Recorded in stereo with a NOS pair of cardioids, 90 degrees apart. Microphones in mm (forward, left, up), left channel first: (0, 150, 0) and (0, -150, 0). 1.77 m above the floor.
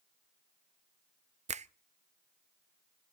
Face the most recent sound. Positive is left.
turn(degrees=-25)